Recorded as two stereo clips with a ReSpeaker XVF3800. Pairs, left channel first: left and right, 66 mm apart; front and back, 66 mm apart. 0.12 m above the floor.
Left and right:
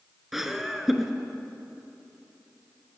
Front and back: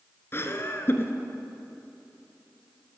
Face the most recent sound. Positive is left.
turn(degrees=-5)